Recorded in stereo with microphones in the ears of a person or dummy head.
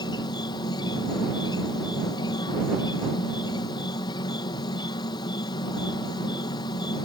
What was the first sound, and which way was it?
An insect, 20° left (ahead or behind).